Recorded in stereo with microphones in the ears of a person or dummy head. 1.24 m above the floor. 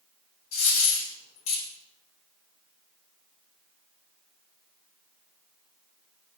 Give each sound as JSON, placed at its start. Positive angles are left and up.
{"t": 0.5, "sound": "a dropped coin", "side_deg": 45, "distance_m": 1.4}